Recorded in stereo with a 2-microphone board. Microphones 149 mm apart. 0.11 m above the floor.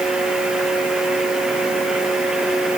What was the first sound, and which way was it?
Only background noise.